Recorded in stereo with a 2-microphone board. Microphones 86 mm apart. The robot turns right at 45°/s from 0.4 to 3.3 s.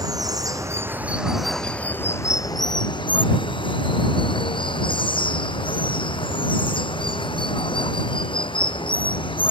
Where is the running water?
45° right; by 9.5 s 85° left.